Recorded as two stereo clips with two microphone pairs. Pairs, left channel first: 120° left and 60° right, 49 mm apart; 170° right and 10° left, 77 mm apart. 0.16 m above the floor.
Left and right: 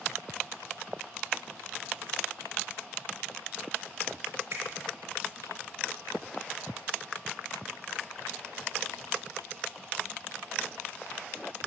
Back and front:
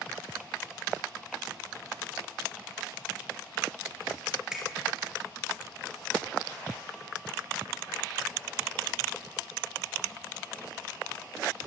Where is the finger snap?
70° right, 2.5 m.